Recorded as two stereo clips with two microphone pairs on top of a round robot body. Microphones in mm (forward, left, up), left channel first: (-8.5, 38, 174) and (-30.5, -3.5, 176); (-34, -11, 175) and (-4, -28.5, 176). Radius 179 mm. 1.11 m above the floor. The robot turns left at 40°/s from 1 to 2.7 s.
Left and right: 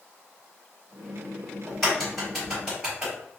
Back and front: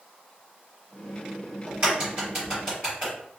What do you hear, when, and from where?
1.7 s a crack: 5° right, 1.1 m; by 3.1 s 45° right, 1.1 m